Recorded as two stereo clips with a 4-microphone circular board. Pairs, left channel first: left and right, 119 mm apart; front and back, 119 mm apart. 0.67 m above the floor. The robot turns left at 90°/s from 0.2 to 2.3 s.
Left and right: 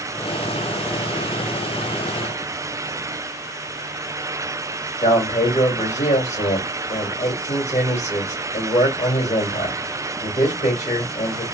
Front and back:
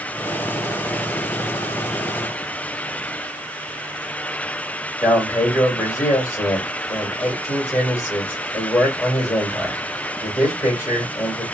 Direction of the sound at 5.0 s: 70° left.